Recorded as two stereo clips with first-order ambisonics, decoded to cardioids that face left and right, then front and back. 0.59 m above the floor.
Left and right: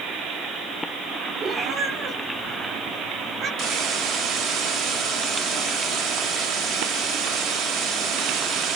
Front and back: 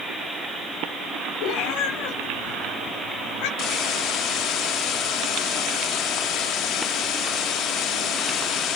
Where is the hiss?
50° right, 3.5 m.